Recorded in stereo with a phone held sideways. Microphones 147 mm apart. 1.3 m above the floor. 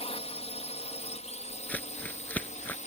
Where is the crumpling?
10° left (ahead or behind).